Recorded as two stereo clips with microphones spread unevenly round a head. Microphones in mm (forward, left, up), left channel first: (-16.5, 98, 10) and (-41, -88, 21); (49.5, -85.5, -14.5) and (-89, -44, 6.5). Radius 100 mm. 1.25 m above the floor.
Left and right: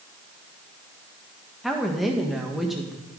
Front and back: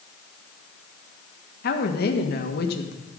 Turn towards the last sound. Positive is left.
turn(degrees=-10)